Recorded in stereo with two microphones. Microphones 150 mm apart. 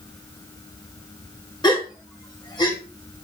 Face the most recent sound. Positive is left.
turn(degrees=30)  # may be behind; listen again after turning